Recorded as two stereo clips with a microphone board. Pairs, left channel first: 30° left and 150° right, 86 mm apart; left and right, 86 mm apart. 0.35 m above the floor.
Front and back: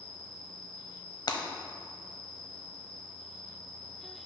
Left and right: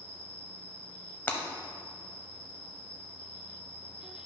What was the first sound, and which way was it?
An insect, 100° left.